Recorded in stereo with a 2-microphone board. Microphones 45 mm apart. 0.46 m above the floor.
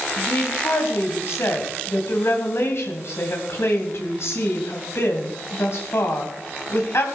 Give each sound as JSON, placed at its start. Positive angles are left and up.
{"t": 0.2, "sound": "a woman speaking", "side_deg": 60, "distance_m": 3.0}